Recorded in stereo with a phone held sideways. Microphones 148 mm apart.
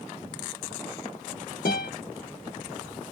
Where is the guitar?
85° left, 1.1 m.